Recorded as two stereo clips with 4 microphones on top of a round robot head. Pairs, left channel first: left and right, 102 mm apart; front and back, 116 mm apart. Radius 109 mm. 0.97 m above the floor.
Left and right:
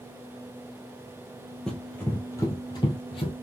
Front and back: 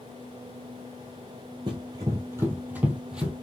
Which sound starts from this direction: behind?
Running footsteps, at 1.7 s.